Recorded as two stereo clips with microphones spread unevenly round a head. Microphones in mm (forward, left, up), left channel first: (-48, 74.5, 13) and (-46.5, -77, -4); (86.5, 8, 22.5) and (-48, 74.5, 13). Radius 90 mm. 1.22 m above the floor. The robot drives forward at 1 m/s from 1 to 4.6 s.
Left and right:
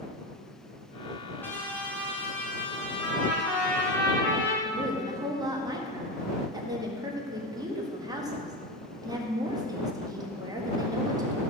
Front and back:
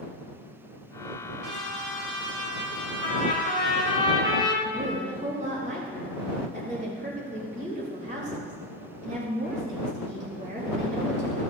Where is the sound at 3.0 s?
10° left, 3 m; by 4.5 s 20° left, 1.7 m.